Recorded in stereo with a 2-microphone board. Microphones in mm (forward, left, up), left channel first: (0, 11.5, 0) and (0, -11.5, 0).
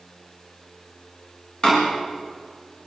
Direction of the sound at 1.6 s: 45° left (ahead or behind).